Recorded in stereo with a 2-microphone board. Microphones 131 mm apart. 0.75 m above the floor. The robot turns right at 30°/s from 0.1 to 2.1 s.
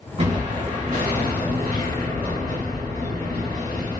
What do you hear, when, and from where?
0.2 s an explosion: 125° right, 1.5 m; by 4.0 s 70° right, 1.5 m